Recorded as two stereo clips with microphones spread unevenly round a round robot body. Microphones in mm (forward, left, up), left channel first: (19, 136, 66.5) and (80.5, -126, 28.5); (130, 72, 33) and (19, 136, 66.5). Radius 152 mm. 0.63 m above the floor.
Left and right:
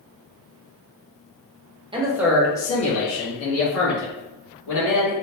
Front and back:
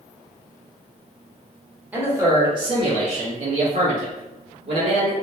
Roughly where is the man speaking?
Behind right.